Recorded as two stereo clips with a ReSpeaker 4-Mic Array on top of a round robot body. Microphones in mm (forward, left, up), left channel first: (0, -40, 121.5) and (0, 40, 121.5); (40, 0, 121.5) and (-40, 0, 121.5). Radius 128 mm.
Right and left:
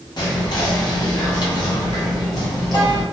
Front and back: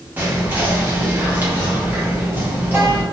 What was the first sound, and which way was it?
Whispering, 115° right.